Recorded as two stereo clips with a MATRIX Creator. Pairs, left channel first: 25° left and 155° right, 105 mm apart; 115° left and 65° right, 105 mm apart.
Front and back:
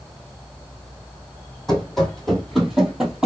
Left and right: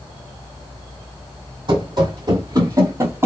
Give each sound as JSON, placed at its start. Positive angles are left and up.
{"t": 1.7, "sound": "running footsteps", "azimuth_deg": -60, "distance_m": 1.6}